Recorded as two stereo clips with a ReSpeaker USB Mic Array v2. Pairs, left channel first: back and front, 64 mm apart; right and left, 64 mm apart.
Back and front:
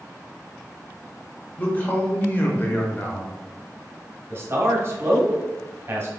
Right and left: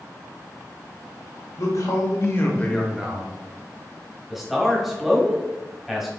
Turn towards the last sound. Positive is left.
turn(degrees=5)